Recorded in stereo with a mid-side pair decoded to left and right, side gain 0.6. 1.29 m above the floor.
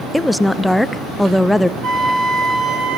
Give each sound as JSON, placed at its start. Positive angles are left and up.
{"t": 0.1, "sound": "a woman speaking", "azimuth_deg": 5, "distance_m": 0.8}
{"t": 1.8, "sound": "a flute", "azimuth_deg": -60, "distance_m": 4.5}